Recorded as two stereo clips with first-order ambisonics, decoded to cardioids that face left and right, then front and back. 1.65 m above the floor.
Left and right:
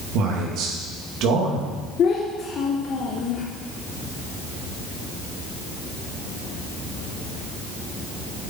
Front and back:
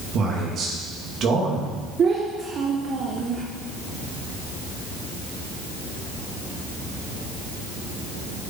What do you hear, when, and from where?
0.1 s a man speaking: 125° right, 2.5 m
2.0 s a child speaking: 130° left, 0.8 m